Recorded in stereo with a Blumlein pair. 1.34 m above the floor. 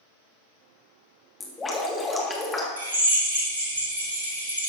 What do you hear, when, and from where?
1.4 s dripping: 15° left, 1.8 m
2.8 s a drill: 70° right, 2.5 m